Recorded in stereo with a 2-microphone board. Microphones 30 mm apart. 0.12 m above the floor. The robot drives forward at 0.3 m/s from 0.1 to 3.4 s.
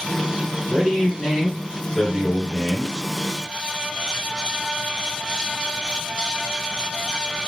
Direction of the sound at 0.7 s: 25° left (ahead or behind).